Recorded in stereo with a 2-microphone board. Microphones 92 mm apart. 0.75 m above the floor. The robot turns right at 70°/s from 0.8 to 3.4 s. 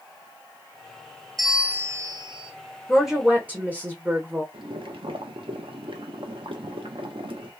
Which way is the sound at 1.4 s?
175° left.